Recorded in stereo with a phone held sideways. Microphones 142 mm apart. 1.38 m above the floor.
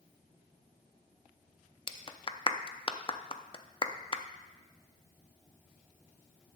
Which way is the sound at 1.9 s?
35° left (ahead or behind).